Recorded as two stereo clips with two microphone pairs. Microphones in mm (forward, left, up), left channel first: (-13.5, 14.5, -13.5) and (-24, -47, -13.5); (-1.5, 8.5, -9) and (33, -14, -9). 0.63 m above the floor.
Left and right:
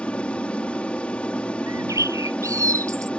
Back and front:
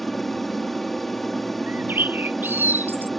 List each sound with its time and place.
0.0 s an aircraft: 70° left
1.7 s a bird: 70° right